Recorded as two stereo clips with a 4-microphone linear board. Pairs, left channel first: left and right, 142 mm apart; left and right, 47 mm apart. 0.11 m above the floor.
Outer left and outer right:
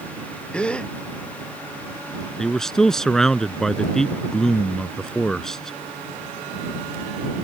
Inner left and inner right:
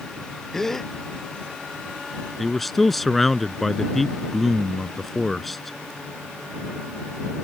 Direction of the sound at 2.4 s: 5° left (ahead or behind).